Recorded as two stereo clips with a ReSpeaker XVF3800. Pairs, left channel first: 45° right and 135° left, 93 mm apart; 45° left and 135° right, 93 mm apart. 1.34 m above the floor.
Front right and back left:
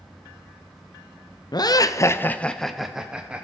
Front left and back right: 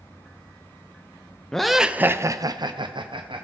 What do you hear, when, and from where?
1.5 s laughter: 35° right, 0.6 m; by 3.5 s 150° right, 0.9 m